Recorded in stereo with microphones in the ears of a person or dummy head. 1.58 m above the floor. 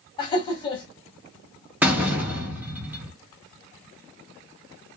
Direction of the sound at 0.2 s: 25° left (ahead or behind).